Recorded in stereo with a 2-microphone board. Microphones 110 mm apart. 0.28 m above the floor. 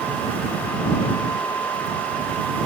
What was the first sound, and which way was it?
Only background noise.